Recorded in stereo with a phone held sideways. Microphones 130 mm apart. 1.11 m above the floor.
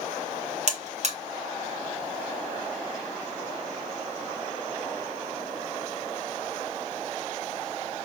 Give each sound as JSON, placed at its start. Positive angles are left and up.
{"t": 0.7, "sound": "a buzzer", "side_deg": -55, "distance_m": 1.8}